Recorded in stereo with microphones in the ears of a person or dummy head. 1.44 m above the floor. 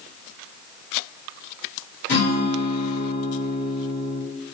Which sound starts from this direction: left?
A guitar, at 2.1 s.